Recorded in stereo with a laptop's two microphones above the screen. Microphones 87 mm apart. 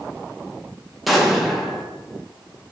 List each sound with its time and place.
1.1 s an explosion: centre (ahead or behind), 0.8 m